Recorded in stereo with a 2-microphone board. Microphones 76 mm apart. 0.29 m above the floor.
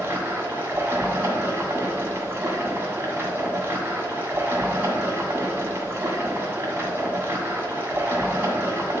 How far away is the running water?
About 1.4 m.